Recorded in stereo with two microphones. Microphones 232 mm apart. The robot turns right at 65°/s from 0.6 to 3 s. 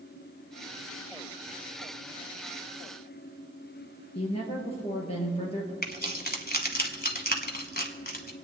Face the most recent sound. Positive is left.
turn(degrees=40)  # may be behind; listen again after turning